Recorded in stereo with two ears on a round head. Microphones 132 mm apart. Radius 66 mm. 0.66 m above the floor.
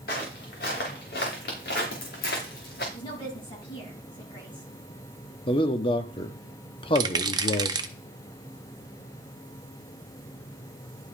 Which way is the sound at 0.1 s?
75° left (ahead or behind).